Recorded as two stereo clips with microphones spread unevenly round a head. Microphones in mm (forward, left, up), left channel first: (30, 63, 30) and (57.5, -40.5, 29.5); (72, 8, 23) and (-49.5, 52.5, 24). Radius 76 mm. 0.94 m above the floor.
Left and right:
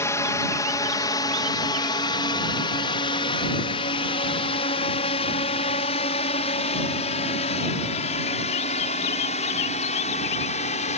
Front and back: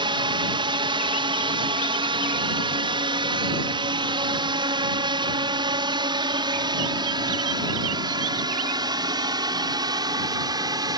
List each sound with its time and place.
0.0 s a drone: 155° left; by 11.0 s 100° left